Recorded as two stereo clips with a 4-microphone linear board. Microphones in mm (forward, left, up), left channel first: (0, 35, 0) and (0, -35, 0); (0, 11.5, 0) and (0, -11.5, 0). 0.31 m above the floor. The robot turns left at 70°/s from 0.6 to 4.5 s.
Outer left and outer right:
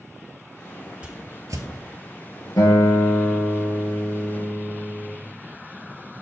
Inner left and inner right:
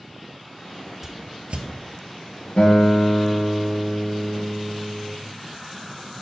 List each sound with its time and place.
1.0 s a whoosh: 15° right (ahead or behind), 1.0 m; by 1.6 s 60° right (ahead or behind), 1.0 m
2.6 s a guitar: 65° left, 3 m; by 5.1 s 70° right, 3 m